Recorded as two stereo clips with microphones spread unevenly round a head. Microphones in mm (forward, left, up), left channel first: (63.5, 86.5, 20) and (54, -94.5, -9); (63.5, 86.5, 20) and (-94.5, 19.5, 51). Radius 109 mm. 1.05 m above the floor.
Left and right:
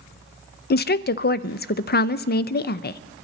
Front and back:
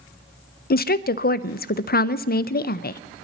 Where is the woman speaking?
50° left, 0.6 m.